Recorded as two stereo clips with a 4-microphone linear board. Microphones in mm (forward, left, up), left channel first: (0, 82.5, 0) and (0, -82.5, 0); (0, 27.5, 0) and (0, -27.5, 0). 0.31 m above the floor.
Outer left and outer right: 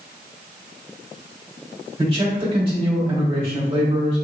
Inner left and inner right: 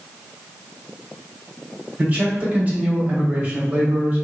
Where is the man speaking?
35° right (ahead or behind), 1.3 m.